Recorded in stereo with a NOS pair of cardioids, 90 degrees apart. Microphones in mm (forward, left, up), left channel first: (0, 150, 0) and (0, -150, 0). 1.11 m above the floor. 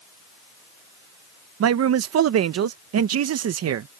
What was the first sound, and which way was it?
A man speaking, 60° right.